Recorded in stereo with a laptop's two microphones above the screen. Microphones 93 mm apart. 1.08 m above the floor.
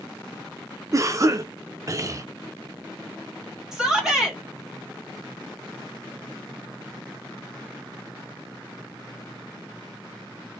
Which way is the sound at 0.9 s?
35° right (ahead or behind).